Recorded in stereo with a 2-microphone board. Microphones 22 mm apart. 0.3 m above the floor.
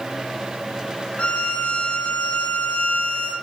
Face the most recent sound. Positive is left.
turn(degrees=70)  # may be behind; listen again after turning